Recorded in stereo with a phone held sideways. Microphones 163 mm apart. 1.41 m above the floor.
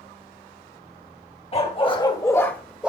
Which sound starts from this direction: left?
A dog barking, at 1.5 s.